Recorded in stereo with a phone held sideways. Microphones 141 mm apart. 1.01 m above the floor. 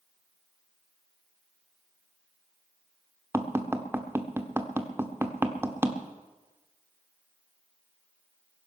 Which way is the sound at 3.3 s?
15° right (ahead or behind).